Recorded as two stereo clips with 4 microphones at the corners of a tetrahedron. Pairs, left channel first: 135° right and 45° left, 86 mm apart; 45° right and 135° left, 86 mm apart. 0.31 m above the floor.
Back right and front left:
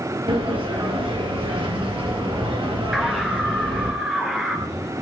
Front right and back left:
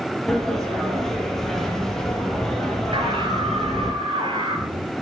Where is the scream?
130° left, 5 m.